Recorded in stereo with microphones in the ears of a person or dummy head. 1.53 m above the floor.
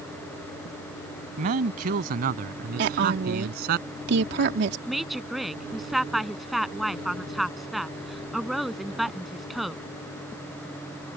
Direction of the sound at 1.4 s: 50° right (ahead or behind).